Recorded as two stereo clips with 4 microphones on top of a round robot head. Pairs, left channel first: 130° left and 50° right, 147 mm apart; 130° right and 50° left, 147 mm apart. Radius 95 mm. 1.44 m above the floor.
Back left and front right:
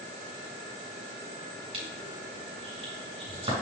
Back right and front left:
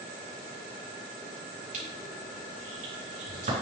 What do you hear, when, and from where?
1.7 s crushing: 5° left, 3.5 m